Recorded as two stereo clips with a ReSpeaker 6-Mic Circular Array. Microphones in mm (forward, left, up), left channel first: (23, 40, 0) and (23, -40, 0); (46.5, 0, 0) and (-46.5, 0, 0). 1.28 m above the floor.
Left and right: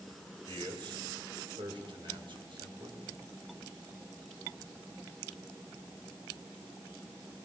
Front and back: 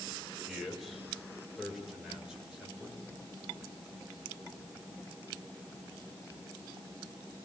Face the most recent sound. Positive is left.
turn(degrees=-100)